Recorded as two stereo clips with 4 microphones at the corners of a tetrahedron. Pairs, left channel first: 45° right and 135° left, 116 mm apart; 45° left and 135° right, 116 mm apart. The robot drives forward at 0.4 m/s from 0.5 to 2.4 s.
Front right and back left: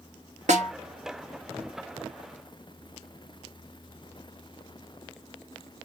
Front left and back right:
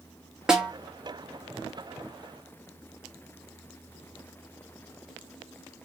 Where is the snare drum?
140° left, 1.0 m; by 0.7 s 145° left, 1.0 m.